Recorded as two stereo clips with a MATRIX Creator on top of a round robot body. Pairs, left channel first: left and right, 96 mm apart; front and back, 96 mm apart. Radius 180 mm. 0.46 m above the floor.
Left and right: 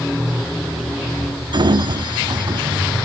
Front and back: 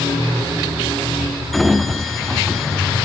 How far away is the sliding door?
About 1.6 m.